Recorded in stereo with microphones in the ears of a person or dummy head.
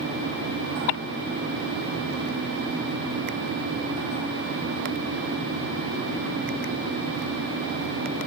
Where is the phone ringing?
No phone ringing in this recording.